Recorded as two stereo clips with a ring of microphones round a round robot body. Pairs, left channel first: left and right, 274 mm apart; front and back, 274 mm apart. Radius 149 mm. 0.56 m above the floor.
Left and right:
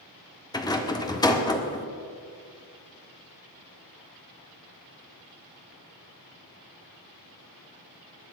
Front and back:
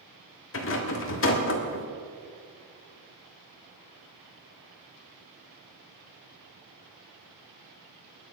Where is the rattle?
20° left, 1.8 m.